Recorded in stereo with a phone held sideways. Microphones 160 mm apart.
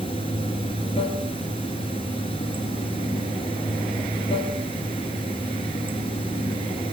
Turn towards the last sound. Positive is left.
turn(degrees=35)  # may be behind; listen again after turning